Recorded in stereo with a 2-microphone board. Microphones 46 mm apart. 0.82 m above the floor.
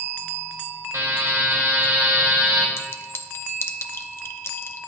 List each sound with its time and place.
0.9 s a buzzer: 70° right (ahead or behind), 3 m
2.8 s a clink: 55° left (ahead or behind), 0.7 m